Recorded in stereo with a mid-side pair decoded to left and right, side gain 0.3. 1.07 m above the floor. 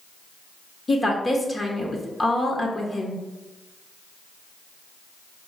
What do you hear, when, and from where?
0.9 s a woman speaking: 40° left, 1.1 m